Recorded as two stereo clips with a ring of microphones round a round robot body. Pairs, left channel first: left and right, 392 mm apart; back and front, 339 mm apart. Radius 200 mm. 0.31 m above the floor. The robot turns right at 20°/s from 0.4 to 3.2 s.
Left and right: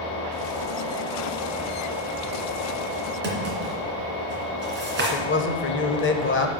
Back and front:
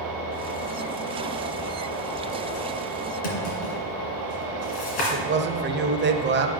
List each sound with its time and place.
3.2 s a drawer: 155° right, 2.5 m
5.0 s a man speaking: 45° left, 1.1 m